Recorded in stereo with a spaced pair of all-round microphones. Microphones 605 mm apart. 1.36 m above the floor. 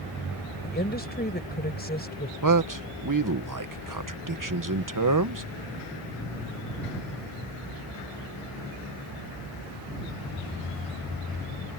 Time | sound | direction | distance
0.6 | a woman speaking | 15° left (ahead or behind) | ?
2.4 | a man speaking | 35° right (ahead or behind) | ?